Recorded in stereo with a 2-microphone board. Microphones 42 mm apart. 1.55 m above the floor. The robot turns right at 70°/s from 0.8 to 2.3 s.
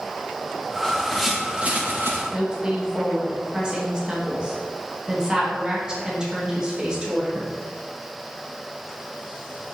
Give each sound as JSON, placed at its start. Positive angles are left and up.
{"t": 0.8, "sound": "a bird", "azimuth_deg": 155, "distance_m": 1.5}
{"t": 2.3, "sound": "a woman speaking", "side_deg": -20, "distance_m": 2.0}